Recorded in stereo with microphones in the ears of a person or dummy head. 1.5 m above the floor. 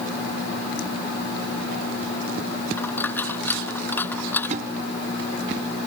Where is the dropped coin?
15° left (ahead or behind).